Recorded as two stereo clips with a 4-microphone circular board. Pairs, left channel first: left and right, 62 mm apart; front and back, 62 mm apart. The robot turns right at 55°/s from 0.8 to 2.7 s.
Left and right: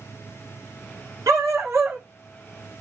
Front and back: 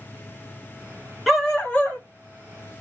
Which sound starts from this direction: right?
A dog barking, at 1.3 s.